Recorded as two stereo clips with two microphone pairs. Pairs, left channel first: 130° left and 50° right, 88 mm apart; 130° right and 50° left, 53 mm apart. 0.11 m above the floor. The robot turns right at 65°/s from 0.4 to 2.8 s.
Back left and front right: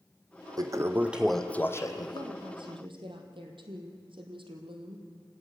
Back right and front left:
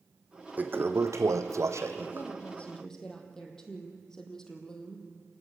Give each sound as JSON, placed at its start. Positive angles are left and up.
{"t": 0.6, "sound": "a toilet flushing", "azimuth_deg": -5, "distance_m": 1.3}
{"t": 2.1, "sound": "a woman speaking", "azimuth_deg": -100, "distance_m": 3.5}